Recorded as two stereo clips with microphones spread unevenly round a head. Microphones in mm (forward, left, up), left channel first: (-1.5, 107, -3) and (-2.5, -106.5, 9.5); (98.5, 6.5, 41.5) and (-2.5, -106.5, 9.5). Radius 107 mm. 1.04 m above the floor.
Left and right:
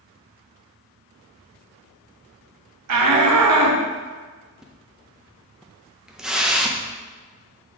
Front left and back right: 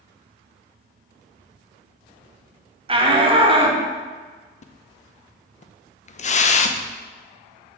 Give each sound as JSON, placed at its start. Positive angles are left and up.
{"t": 2.9, "sound": "a shout", "azimuth_deg": -80, "distance_m": 1.3}
{"t": 4.6, "sound": "a splash", "azimuth_deg": 0, "distance_m": 0.5}